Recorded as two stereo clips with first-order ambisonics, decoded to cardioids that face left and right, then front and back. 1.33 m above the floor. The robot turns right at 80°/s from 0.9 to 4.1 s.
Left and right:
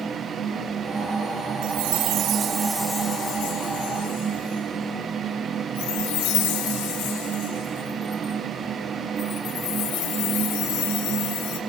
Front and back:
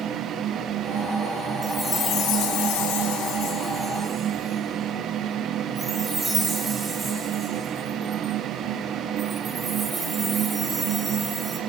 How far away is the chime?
About 3 m.